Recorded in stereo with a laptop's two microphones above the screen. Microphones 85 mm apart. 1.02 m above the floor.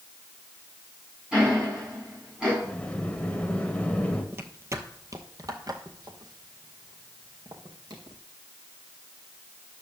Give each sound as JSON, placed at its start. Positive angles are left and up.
{"t": 1.3, "sound": "ticking", "side_deg": -10, "distance_m": 6.0}
{"t": 2.6, "sound": "a sliding door", "side_deg": 15, "distance_m": 1.2}
{"t": 4.3, "sound": "footsteps", "side_deg": -30, "distance_m": 1.1}